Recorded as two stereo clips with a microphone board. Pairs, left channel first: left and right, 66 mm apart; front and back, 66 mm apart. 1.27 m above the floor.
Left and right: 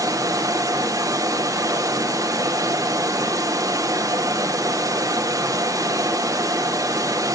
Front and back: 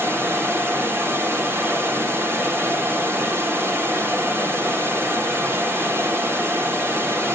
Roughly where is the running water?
Behind right.